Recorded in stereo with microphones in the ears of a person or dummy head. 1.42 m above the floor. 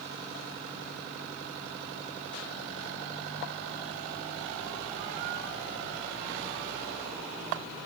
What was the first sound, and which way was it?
Only background noise.